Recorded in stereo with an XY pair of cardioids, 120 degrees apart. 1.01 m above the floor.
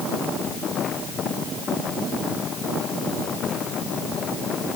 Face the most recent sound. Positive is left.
No sound to turn to.